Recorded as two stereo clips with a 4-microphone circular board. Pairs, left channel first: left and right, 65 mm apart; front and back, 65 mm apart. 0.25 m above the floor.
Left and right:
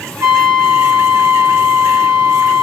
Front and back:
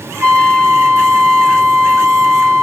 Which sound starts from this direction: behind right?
A trumpet, at 0.2 s.